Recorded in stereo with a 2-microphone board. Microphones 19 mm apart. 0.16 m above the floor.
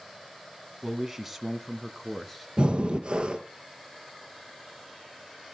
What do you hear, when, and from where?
0.8 s a man speaking: 20° right (ahead or behind), 1.5 m; by 2.5 s 10° left (ahead or behind), 2.0 m
2.6 s breathing: 50° right (ahead or behind), 1.6 m